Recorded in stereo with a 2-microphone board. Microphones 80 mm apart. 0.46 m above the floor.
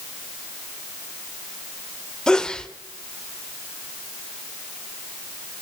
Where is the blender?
I don't hear a blender.